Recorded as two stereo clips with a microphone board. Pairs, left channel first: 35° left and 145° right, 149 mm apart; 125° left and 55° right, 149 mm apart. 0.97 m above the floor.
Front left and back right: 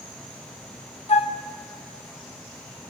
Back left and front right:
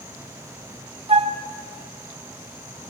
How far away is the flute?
About 0.7 m.